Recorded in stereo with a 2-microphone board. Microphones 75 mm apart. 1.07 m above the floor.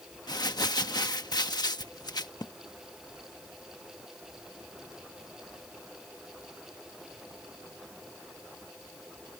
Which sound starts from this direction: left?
Crumpling, at 0.3 s.